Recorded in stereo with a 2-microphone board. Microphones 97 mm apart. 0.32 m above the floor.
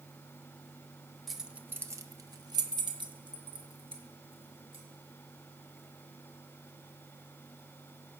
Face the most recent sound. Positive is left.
turn(degrees=-65)  # may be behind; listen again after turning